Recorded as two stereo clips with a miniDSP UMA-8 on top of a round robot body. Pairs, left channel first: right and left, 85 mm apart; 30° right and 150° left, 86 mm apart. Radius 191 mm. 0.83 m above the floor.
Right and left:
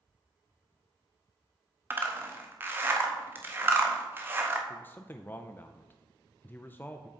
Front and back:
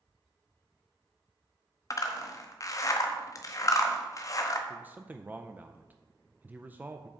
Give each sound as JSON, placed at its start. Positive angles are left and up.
{"t": 1.9, "sound": "a zipper", "azimuth_deg": 25, "distance_m": 0.7}
{"t": 4.7, "sound": "a man speaking", "azimuth_deg": -150, "distance_m": 0.7}